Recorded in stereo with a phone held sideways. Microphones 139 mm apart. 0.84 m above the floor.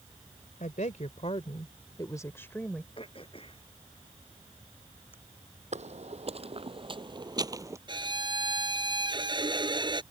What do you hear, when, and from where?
0.6 s a woman speaking: 70° left (ahead or behind); by 2.9 s 5° left (ahead or behind)
3.0 s throat clearing: 40° left (ahead or behind)
5.7 s footsteps: 55° right (ahead or behind); by 7.8 s 20° right (ahead or behind)
7.9 s a violin: 35° right (ahead or behind)